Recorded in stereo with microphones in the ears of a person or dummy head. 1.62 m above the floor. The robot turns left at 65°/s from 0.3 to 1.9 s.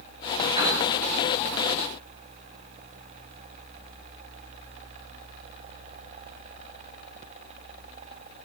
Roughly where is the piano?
Right.